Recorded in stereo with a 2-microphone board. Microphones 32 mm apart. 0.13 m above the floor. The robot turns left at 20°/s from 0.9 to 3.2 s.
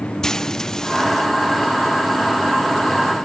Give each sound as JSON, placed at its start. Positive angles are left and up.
{"t": 0.2, "sound": "frying", "side_deg": 15}